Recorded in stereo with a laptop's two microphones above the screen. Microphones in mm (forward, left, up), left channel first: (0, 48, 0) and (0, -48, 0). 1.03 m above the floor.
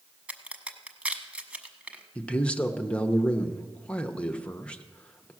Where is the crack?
10° right (ahead or behind), 1.1 m.